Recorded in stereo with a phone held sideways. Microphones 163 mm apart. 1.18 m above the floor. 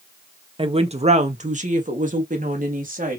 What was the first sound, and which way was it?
A woman speaking, 35° right (ahead or behind).